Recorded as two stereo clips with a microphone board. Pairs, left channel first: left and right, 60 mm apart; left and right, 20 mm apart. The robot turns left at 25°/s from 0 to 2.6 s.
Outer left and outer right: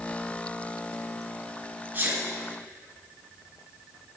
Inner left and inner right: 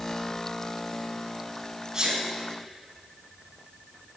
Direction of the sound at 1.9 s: 30° right (ahead or behind).